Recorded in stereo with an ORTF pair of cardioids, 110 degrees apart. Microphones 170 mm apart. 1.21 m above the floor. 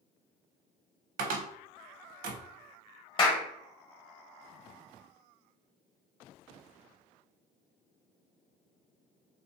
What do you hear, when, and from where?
1.2 s a cupboard door: 55° right, 0.5 m
3.2 s a clap: 30° left, 0.9 m